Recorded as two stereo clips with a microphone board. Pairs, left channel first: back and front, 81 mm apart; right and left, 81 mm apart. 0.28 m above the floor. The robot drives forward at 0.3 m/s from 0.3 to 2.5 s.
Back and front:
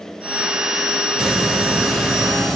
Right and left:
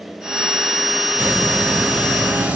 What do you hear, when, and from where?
1.2 s a hiss: 65° left, 1.6 m; by 2.6 s 110° left, 1.6 m